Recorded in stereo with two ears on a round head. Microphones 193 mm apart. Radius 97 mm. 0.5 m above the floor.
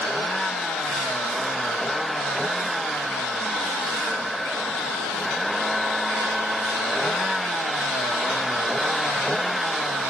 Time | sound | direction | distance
0.0 | a vehicle | centre (ahead or behind) | ?